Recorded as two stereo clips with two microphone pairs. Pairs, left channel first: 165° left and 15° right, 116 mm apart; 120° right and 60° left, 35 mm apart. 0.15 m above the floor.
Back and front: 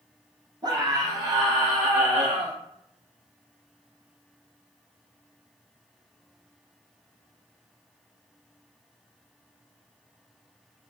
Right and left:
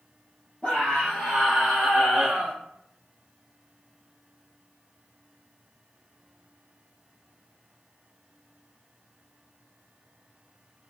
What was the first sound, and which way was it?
A scream, 60° right.